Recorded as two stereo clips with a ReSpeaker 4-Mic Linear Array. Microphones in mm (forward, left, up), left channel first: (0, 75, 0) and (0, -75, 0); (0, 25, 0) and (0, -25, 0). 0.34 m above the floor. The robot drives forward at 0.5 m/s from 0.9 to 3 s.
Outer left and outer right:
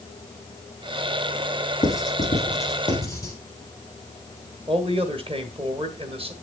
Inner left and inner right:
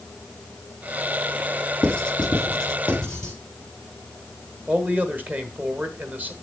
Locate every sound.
1.8 s writing: 20° left (ahead or behind), 3 m
4.7 s a man speaking: 40° right (ahead or behind), 1.5 m